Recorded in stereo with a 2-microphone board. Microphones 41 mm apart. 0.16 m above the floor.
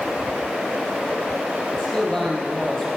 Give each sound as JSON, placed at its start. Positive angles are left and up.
{"t": 1.7, "sound": "a man speaking", "side_deg": 15, "distance_m": 4.5}